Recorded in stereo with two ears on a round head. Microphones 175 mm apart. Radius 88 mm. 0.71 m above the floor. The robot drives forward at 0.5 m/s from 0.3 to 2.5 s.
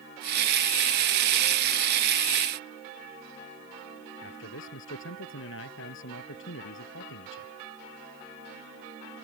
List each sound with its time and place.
4.2 s a man speaking: 75° left (ahead or behind)